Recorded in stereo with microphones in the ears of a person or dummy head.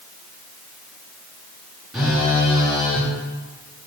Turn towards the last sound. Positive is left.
turn(degrees=-5)  # may be behind; listen again after turning